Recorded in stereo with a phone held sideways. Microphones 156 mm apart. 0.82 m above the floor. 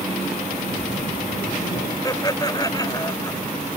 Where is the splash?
80° left.